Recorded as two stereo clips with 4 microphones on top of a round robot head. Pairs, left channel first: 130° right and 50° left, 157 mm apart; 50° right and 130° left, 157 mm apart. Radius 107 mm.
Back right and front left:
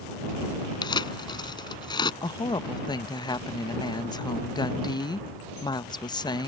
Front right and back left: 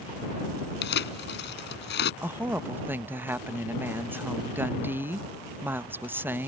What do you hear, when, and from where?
0.8 s tearing paper: 65° right
2.2 s a woman speaking: 165° right